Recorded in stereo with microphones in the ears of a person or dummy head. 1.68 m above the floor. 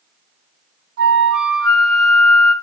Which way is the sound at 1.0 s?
70° right (ahead or behind).